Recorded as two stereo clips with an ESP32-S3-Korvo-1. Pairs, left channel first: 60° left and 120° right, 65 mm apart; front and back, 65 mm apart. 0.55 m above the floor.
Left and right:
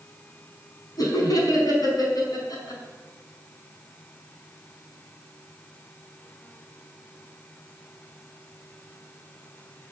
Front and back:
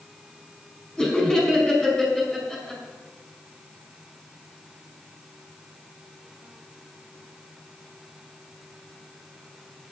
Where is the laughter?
80° left, 5 m.